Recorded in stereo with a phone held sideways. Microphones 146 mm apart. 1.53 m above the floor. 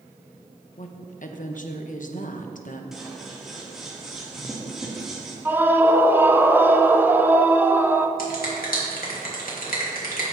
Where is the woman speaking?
65° left (ahead or behind), 1.0 m.